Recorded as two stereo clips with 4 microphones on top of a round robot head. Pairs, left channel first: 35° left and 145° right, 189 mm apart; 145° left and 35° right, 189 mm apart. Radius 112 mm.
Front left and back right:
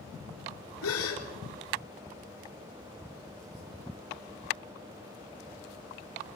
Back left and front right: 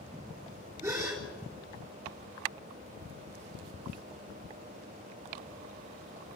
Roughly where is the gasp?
Ahead left.